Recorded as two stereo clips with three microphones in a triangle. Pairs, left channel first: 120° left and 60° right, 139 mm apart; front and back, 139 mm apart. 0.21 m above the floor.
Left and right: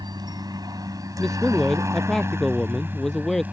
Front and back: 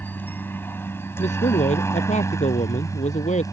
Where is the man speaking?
30° left.